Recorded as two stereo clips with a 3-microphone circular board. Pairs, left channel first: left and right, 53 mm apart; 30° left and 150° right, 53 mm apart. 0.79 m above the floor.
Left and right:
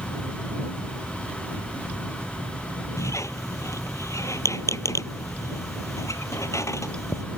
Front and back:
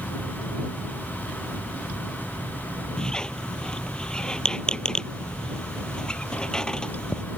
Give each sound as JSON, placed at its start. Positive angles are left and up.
{"t": 3.0, "sound": "a squeak", "azimuth_deg": 105}